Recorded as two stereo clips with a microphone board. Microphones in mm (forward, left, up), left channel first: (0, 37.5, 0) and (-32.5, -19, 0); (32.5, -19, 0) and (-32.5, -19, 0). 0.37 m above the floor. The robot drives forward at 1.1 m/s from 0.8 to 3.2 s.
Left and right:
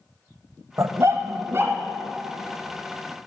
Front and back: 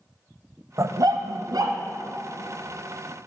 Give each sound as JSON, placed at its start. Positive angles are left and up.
{"t": 0.8, "sound": "a dog barking", "azimuth_deg": -150, "distance_m": 0.6}